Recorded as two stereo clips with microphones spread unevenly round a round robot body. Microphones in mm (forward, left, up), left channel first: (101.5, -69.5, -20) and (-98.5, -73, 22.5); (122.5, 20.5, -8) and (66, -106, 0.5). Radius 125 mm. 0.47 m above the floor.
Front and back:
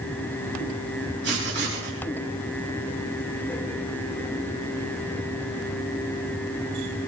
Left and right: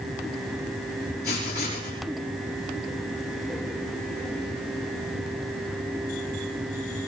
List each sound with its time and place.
1.2 s writing: 130° left, 4.5 m